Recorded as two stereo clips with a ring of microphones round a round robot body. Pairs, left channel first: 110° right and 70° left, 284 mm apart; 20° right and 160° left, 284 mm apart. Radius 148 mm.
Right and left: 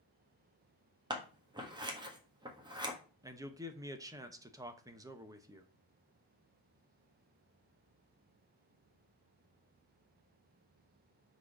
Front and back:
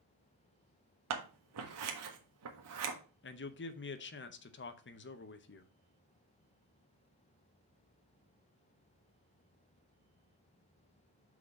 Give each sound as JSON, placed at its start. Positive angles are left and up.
{"t": 1.1, "sound": "scissors", "azimuth_deg": 140, "distance_m": 1.6}
{"t": 3.2, "sound": "a man speaking", "azimuth_deg": -5, "distance_m": 0.9}